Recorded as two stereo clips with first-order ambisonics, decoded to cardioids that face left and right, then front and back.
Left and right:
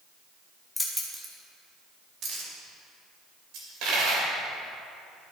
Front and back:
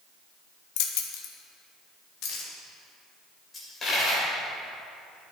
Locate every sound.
0.8 s keys jangling: 5° left, 0.9 m; by 2.5 s 45° right, 1.8 m
3.5 s a dropped coin: 70° right, 2.5 m